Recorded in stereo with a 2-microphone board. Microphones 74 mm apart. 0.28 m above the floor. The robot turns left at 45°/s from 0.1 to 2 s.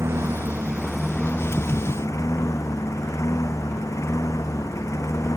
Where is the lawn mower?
140° right; by 5.4 s 135° left.